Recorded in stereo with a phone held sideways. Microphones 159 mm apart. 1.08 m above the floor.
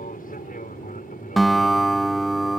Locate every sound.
0.0 s an aircraft: 60° left (ahead or behind); by 2.6 s 55° left (ahead or behind)
1.4 s a guitar: centre (ahead or behind)